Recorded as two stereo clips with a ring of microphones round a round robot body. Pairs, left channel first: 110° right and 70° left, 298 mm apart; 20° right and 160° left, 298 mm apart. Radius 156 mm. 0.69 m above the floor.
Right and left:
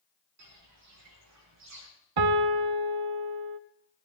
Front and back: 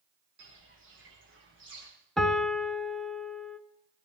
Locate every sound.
0.4 s footsteps: 105° left, 8 m
2.2 s a piano: 65° left, 1.1 m